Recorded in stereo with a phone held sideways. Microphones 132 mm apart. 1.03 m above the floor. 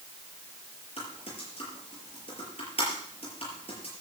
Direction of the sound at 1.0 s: 50° left (ahead or behind).